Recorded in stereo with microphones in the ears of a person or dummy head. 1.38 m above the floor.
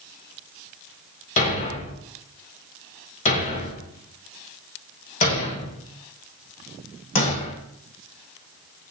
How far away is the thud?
About 2 m.